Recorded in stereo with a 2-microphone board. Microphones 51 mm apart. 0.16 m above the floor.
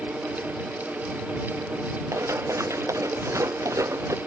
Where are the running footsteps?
75° right (ahead or behind); by 4.2 s 85° right.